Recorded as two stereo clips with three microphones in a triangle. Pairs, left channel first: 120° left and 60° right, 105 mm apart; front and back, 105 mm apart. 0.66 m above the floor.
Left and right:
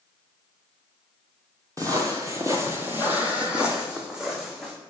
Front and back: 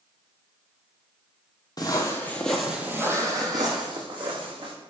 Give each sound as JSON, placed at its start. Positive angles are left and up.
{"t": 1.8, "sound": "footsteps", "azimuth_deg": -20, "distance_m": 0.8}